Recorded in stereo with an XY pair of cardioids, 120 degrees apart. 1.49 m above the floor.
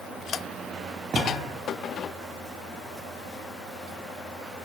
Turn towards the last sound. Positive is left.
turn(degrees=-45)